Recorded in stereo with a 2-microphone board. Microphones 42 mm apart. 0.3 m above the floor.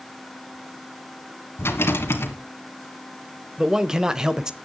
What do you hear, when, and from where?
1.6 s a rattle: 65° left (ahead or behind), 2.5 m
3.6 s a man speaking: 15° right (ahead or behind), 0.9 m